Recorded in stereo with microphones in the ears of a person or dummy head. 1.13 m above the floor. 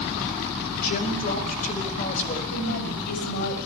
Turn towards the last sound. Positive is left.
turn(degrees=50)  # may be behind; listen again after turning